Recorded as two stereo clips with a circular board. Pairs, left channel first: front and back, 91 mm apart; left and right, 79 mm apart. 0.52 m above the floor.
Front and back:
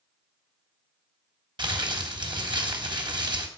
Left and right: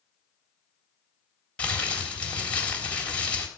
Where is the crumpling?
160° left, 3 m.